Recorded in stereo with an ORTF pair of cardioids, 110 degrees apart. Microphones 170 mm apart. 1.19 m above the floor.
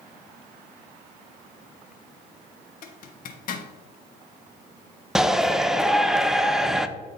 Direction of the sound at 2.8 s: 55° left.